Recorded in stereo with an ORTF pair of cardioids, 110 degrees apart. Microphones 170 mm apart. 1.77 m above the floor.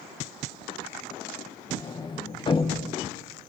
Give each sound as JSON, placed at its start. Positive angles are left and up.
{"t": 1.7, "sound": "a sliding door", "azimuth_deg": 30, "distance_m": 1.6}